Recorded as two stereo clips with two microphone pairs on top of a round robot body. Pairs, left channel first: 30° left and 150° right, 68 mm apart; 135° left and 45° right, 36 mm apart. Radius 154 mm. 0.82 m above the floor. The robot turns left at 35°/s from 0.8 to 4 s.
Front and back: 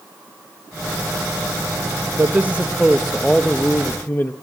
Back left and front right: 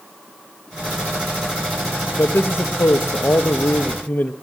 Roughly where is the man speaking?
Behind.